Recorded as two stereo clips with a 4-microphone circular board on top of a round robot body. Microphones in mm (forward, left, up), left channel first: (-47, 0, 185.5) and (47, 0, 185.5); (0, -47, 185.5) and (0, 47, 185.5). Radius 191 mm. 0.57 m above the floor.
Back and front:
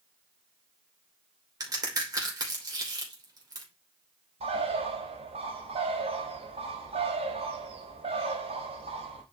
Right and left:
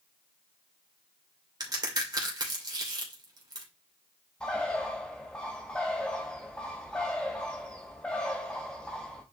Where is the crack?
45° left, 3 m.